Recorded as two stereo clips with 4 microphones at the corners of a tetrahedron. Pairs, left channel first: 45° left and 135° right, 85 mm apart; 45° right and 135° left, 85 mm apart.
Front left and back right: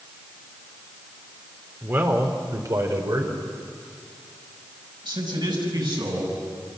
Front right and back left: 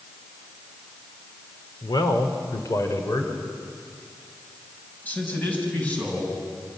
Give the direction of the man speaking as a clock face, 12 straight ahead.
2 o'clock.